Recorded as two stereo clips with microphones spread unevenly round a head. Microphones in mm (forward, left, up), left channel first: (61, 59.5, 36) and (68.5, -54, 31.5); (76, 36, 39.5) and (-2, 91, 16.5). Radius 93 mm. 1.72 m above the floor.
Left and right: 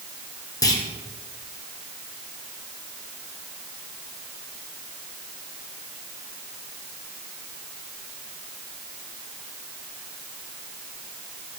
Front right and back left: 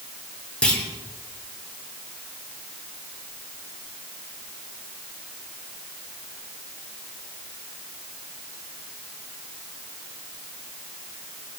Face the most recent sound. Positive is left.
turn(degrees=40)